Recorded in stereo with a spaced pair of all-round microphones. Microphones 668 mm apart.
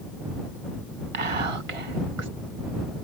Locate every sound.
1.1 s whispering: 50° right (ahead or behind)